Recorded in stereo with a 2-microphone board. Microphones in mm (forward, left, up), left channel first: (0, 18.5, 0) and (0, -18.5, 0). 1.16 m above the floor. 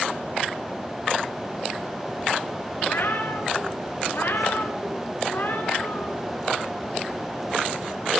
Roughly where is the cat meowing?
Left.